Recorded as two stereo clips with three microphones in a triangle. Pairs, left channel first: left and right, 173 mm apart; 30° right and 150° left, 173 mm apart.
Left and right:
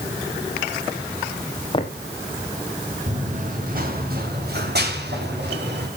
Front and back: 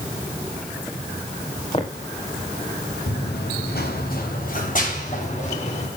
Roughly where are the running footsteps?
Ahead right.